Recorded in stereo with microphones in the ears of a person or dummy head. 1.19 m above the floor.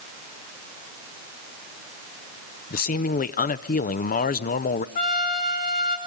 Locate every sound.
2.7 s a man speaking: 40° left (ahead or behind), 0.5 m
5.0 s a trumpet: 50° left (ahead or behind), 2 m